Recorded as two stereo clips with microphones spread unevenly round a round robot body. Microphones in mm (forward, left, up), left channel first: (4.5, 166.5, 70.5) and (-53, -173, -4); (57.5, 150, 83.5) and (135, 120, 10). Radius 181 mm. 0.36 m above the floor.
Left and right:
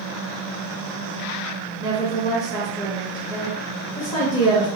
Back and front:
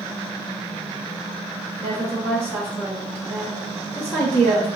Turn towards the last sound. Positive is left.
turn(degrees=-10)